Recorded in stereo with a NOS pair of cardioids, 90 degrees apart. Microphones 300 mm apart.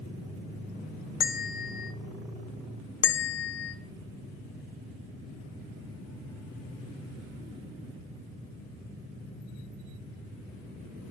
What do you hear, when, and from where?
1.2 s a bell: 30° left, 0.6 m
3.0 s a bell: 40° left, 0.5 m